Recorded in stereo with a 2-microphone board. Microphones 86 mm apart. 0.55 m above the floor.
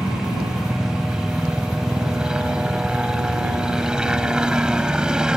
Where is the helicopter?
10° right (ahead or behind).